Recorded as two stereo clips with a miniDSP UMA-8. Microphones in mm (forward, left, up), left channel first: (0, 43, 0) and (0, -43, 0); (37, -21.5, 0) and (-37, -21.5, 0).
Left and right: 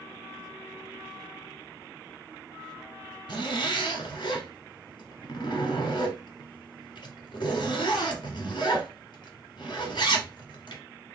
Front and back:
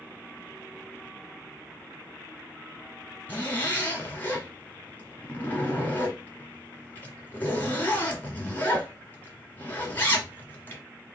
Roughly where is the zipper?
Ahead left.